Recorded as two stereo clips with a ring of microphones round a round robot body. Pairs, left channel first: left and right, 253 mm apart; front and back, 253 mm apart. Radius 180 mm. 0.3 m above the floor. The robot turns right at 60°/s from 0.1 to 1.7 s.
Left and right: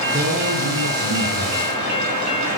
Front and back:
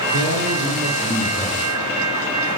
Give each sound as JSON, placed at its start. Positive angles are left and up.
{"t": 0.1, "sound": "a man speaking", "azimuth_deg": -160, "distance_m": 7.0}